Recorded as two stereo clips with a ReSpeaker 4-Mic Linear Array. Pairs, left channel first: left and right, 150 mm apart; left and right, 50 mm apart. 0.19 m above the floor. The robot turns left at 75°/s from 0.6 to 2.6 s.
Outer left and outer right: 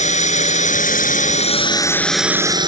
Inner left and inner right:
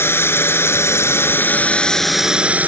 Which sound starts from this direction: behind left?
A drone, at 0.0 s.